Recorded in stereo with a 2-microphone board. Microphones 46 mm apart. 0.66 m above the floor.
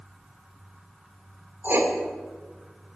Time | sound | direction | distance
1.6 | writing | 65° right (ahead or behind) | 1.8 m